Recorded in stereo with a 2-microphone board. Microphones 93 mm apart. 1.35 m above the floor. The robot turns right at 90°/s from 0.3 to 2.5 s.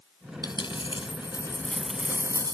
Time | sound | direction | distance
0.4 | a dropped coin | 50° left | ?